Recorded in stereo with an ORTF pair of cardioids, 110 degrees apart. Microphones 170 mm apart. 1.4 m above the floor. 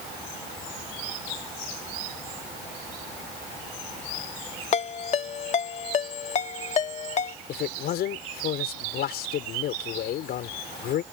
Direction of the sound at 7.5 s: 65° left.